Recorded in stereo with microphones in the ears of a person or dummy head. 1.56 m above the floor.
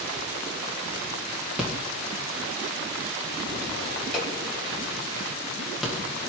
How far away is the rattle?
About 2 m.